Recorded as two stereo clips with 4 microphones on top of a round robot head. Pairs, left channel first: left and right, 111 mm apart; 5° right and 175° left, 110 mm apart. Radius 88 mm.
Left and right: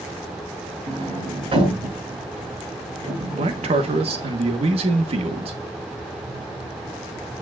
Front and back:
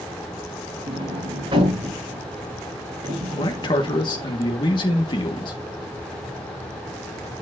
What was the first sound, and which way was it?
A sliding door, 125° right.